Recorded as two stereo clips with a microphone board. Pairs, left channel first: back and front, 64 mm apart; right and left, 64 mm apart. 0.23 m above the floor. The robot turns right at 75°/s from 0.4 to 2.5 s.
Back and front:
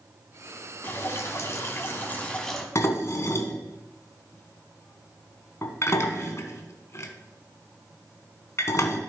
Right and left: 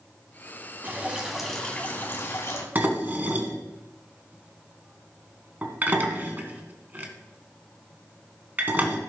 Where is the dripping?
135° left, 1.9 m; by 2.6 s 100° right, 1.9 m.